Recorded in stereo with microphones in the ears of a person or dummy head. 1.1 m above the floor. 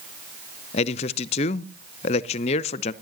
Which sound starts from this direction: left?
A man speaking, at 0.7 s.